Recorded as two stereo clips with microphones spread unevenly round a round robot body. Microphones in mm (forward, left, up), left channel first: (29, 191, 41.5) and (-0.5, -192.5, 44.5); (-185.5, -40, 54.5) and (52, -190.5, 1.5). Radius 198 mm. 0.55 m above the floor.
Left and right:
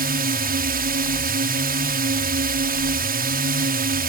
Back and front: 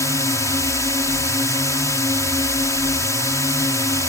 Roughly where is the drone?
Behind right.